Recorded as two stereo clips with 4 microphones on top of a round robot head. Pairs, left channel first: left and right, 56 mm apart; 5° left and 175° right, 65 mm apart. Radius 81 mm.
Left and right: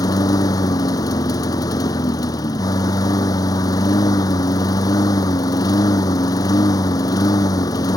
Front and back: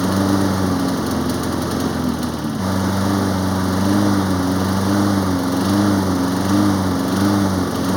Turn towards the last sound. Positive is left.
turn(degrees=95)